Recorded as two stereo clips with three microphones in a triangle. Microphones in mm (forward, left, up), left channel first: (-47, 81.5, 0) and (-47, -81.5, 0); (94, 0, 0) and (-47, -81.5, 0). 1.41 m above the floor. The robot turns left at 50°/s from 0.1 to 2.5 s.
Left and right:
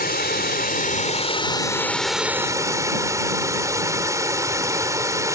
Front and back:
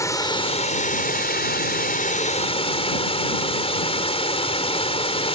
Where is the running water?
100° left; by 5.4 s 20° right.